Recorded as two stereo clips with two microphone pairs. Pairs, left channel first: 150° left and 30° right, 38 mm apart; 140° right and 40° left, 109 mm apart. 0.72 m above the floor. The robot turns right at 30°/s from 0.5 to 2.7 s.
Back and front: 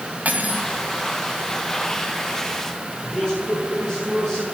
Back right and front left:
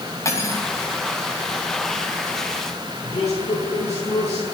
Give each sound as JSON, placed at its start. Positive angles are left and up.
{"t": 0.2, "sound": "cutlery clinking", "azimuth_deg": -75, "distance_m": 3.0}
{"t": 3.0, "sound": "a man speaking", "azimuth_deg": -140, "distance_m": 7.0}